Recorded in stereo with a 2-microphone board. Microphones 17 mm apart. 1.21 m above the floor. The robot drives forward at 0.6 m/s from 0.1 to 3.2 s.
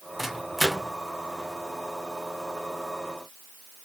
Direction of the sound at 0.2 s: 5° right (ahead or behind).